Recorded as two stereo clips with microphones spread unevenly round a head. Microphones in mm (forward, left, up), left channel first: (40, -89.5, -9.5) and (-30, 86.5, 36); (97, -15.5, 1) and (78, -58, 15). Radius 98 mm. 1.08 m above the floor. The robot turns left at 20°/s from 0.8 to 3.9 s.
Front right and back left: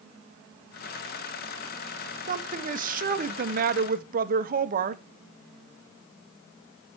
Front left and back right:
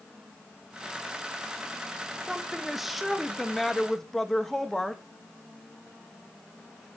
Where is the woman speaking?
140° left, 0.7 m; by 5.0 s 110° left, 0.7 m.